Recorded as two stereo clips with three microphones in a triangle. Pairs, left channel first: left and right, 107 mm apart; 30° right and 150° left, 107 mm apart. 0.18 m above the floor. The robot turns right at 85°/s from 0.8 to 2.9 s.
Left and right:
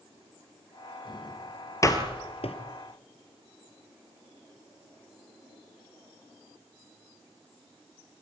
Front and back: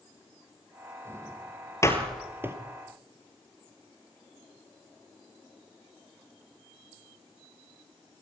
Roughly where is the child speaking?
No child speaking in this recording.